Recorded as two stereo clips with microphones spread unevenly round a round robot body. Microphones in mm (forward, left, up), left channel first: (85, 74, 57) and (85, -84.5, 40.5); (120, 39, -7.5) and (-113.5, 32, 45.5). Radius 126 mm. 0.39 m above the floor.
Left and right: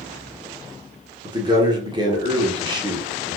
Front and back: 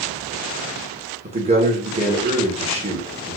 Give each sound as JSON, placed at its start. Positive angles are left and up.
{"t": 1.2, "sound": "a man speaking", "azimuth_deg": -110, "distance_m": 1.0}